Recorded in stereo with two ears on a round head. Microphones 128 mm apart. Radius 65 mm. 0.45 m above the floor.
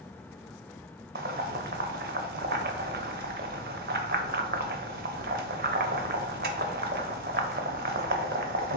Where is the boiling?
65° right (ahead or behind), 0.6 m.